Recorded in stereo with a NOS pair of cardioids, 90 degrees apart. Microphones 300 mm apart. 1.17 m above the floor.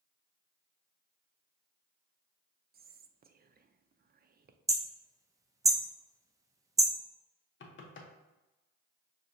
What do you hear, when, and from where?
2.7 s whispering: 30° right, 0.6 m
4.7 s hammering: 10° right, 0.5 m
7.6 s knocking: 40° left, 0.9 m